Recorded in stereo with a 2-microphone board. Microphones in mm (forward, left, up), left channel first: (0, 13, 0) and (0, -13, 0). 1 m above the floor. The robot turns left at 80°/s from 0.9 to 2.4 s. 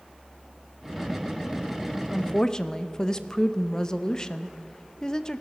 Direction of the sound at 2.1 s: 50° left (ahead or behind).